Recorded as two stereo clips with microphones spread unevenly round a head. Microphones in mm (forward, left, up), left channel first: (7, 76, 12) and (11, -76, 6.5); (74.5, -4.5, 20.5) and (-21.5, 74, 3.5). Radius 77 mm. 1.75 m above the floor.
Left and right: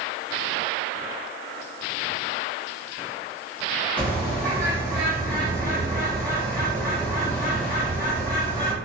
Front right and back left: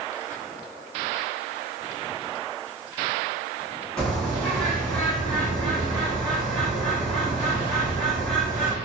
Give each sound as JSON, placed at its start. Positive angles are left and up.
{"t": 4.0, "sound": "a bird", "azimuth_deg": 25, "distance_m": 0.9}